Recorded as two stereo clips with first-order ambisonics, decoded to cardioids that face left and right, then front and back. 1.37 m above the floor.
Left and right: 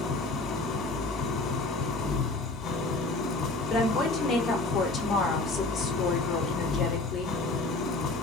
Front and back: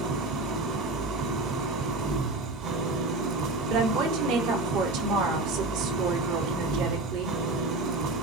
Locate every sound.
0.0 s an engine running: 145° left, 2.5 m
3.7 s a woman speaking: 165° left, 4 m